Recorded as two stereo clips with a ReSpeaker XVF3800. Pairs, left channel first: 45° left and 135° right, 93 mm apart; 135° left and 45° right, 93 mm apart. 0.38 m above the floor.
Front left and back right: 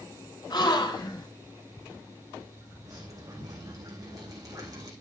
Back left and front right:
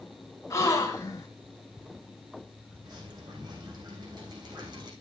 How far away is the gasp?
About 2.5 m.